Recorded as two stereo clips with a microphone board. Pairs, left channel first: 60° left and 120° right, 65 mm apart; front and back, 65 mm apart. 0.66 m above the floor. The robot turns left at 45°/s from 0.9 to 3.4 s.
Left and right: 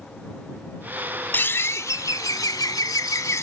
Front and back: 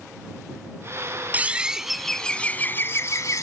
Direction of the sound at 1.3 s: 115° left.